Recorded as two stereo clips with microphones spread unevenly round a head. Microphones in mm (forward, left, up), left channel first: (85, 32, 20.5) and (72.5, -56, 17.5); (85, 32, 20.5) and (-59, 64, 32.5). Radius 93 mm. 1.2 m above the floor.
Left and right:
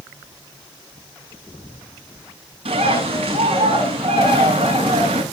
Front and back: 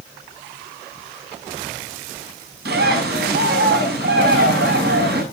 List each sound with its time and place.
2.6 s a bird: 155° right, 7 m